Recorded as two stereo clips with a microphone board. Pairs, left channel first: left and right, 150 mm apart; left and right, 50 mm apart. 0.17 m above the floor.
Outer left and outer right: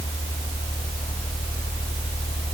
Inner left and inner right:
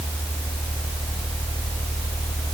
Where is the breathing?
I don't hear breathing.